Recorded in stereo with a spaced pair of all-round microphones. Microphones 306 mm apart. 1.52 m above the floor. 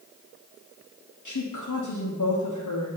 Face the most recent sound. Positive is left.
turn(degrees=80)